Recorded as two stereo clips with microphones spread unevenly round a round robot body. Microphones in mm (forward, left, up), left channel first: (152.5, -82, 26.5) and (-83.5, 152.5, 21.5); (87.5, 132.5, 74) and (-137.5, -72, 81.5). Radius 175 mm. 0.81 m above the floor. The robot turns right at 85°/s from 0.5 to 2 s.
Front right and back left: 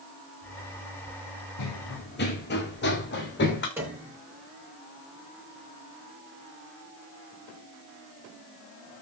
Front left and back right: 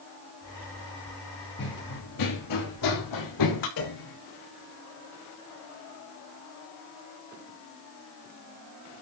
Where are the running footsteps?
20° right, 3 m; by 3.7 s 15° left, 4 m.